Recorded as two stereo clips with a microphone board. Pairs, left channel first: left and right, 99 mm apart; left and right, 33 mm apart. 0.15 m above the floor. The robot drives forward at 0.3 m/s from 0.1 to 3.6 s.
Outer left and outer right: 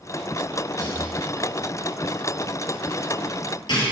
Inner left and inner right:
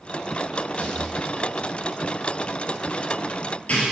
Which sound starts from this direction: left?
A rattle, at 0.8 s.